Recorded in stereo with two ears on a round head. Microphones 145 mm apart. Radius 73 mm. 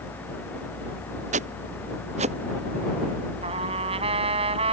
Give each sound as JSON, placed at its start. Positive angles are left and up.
{"t": 1.3, "sound": "footsteps", "side_deg": -45}
{"t": 3.4, "sound": "a trumpet", "side_deg": -40}